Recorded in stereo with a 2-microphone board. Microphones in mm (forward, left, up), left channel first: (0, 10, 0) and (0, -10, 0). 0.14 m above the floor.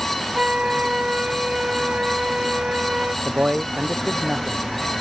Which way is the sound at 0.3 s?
65° right (ahead or behind).